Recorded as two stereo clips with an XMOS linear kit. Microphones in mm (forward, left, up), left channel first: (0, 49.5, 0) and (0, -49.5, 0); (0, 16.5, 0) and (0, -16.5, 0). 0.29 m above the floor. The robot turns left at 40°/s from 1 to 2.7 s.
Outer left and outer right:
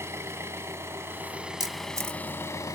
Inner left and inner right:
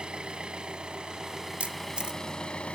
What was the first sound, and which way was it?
An engine running, 150° right.